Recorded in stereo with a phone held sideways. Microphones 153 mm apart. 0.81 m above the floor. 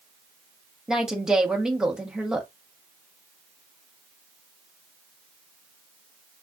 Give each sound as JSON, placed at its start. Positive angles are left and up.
{"t": 0.9, "sound": "a woman speaking", "side_deg": -5, "distance_m": 0.8}